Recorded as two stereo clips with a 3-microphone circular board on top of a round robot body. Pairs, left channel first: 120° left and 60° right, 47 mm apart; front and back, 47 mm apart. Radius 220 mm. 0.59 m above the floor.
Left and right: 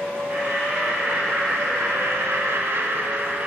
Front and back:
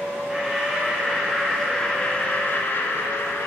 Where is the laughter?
100° right, 2 m; by 3.5 s 10° right, 1.6 m.